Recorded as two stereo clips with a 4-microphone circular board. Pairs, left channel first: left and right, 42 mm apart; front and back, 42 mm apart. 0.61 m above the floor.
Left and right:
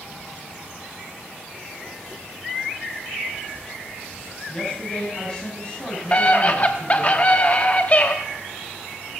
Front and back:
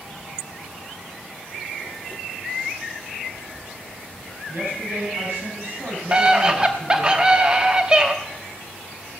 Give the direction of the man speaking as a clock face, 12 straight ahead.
7 o'clock.